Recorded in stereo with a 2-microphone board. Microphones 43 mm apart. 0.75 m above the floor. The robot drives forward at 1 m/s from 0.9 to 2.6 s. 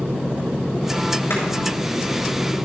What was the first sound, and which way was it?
Chopping, 75° left (ahead or behind).